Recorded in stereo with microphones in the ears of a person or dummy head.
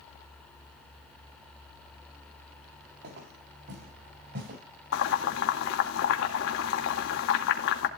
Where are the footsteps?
60° right (ahead or behind), 9 m; by 4.6 s 55° right (ahead or behind), 9 m.